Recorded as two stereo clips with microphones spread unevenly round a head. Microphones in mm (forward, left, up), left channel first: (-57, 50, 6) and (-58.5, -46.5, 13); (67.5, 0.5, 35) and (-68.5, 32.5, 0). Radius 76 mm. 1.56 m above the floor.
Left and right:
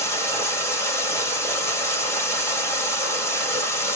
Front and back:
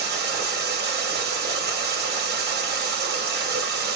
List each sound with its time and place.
0.0 s running water: 155° left, 2 m